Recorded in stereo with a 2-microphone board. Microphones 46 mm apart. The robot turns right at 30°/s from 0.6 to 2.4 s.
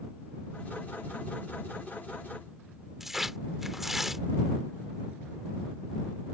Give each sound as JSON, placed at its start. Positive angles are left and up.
{"t": 3.0, "sound": "tearing paper", "side_deg": -5}